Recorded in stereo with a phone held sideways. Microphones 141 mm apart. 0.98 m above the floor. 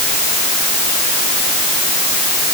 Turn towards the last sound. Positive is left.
No sound to turn to.